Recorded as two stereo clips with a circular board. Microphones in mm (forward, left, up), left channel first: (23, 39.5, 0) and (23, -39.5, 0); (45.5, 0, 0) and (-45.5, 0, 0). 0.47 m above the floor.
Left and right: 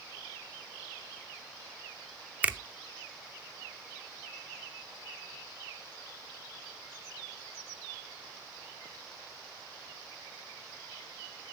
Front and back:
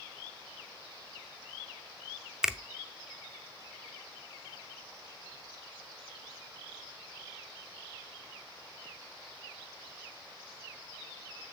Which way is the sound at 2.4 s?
110° right.